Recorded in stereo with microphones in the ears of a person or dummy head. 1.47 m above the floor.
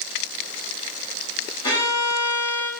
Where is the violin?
25° left (ahead or behind), 2 m.